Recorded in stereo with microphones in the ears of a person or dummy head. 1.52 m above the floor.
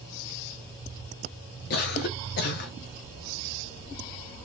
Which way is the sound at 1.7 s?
50° left (ahead or behind).